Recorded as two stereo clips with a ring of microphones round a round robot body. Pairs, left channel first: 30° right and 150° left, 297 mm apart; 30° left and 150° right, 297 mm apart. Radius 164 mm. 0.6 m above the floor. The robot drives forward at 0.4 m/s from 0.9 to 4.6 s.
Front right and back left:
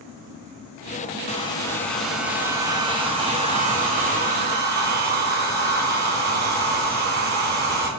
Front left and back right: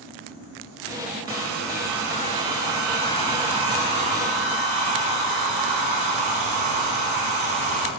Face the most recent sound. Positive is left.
turn(degrees=-150)